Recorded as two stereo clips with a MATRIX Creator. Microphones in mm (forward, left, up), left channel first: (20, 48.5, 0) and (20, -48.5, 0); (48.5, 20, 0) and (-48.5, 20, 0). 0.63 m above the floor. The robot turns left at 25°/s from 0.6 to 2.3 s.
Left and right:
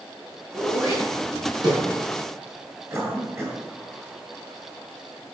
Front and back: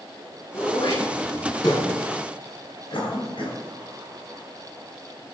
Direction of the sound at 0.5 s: 20° right.